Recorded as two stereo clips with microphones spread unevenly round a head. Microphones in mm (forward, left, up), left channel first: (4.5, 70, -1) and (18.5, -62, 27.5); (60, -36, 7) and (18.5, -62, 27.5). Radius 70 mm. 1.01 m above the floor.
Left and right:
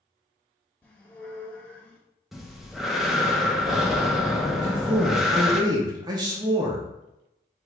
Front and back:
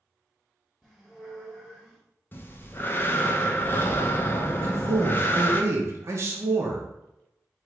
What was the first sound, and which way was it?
A squeak, 165° right.